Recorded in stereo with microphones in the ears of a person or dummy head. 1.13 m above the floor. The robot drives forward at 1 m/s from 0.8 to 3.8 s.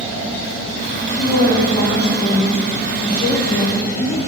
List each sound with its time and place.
1.2 s a woman speaking: 45° left (ahead or behind), 1.8 m; by 4.2 s 20° left (ahead or behind), 4 m